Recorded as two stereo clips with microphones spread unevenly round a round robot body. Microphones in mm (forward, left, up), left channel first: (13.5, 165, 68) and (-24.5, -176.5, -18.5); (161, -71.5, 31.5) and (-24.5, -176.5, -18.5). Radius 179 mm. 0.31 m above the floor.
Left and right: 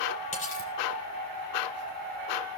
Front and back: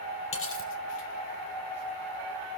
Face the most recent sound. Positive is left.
turn(degrees=10)